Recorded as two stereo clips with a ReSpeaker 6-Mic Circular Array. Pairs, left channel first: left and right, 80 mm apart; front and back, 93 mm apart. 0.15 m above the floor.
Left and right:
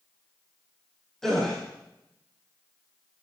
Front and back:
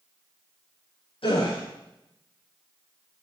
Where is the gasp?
5° left, 5 m.